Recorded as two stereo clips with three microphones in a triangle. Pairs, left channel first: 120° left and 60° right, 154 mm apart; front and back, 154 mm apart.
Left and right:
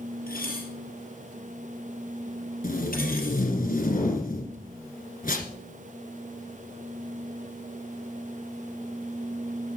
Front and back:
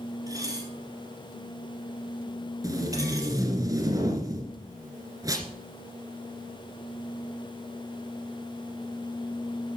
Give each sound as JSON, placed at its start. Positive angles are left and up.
{"t": 0.3, "sound": "dishes clattering", "azimuth_deg": 115, "distance_m": 3.0}
{"t": 2.6, "sound": "tape being pulled", "azimuth_deg": 115, "distance_m": 2.0}